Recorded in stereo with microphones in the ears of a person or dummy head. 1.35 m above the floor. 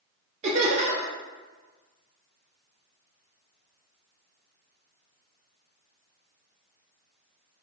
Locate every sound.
0.4 s laughter: 35° right (ahead or behind), 0.5 m